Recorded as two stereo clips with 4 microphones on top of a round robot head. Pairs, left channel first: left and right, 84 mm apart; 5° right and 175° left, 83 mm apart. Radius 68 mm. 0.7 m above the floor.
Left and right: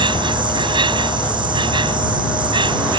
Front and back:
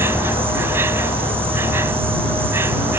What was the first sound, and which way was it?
An insect, 115° right.